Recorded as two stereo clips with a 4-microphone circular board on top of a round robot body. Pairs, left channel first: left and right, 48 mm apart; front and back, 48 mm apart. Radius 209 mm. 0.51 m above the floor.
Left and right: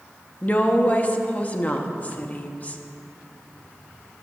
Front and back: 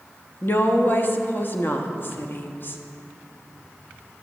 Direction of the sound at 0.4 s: 35° left.